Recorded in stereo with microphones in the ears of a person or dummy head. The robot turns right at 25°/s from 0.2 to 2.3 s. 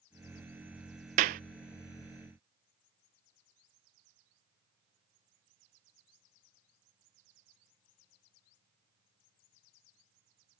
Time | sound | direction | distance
1.2 | a clap | 35° right (ahead or behind) | ?